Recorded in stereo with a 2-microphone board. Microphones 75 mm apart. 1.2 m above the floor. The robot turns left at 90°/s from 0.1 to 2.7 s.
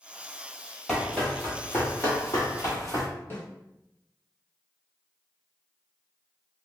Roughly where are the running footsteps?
Centre.